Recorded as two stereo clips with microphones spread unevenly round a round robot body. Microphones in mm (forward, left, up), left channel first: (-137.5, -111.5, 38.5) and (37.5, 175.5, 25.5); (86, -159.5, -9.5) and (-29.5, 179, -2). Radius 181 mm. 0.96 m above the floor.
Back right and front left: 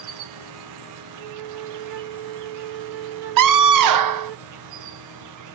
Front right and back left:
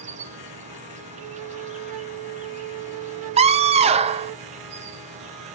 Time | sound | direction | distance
0.0 | an insect | 40° left | 0.8 m
1.2 | a flute | 65° left | 0.7 m
3.4 | a scream | 35° left | 0.7 m